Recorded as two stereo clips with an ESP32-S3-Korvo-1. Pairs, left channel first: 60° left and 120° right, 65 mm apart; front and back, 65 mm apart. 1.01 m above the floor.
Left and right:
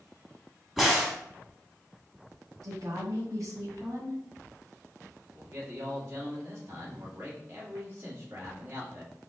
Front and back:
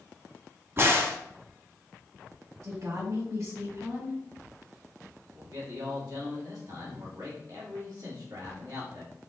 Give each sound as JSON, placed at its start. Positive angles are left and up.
{"t": 0.8, "sound": "a crack", "azimuth_deg": 150, "distance_m": 1.1}
{"t": 2.6, "sound": "a woman speaking", "azimuth_deg": -150, "distance_m": 2.0}
{"t": 5.3, "sound": "a man speaking", "azimuth_deg": -170, "distance_m": 1.9}